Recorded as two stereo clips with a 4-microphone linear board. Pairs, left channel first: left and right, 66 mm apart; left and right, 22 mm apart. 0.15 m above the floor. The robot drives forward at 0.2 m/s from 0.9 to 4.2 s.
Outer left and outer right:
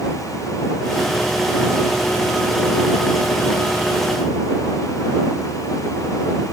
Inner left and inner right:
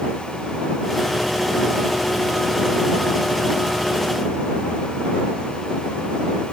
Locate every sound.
Only background noise.